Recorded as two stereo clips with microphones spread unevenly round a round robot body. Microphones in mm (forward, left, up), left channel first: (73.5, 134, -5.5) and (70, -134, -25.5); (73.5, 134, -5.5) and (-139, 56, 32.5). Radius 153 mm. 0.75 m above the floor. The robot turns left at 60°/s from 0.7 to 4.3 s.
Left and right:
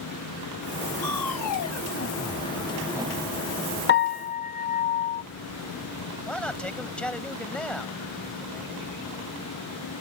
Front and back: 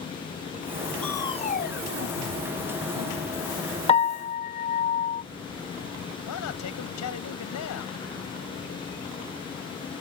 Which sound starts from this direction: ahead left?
A piano, at 3.9 s.